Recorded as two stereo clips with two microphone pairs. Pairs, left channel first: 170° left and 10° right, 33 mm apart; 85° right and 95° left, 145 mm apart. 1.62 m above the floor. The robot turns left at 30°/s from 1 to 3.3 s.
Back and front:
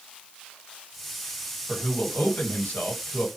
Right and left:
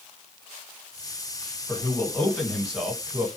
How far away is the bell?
No bell in this recording.